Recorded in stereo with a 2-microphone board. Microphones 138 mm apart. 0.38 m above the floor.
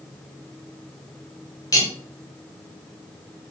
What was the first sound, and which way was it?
Cutlery clinking, 25° left (ahead or behind).